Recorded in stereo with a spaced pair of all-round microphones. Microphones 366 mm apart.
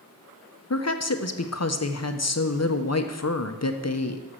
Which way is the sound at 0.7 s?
45° left (ahead or behind).